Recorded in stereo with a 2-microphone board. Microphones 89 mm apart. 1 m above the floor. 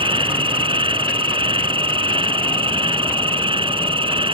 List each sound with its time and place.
0.0 s an insect: 75° right (ahead or behind)